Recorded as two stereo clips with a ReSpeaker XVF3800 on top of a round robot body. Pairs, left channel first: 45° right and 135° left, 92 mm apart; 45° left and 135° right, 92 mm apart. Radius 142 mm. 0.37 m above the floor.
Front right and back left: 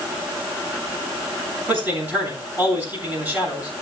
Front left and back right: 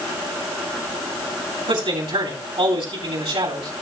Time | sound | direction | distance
1.7 | a man speaking | 155° right | 8.5 m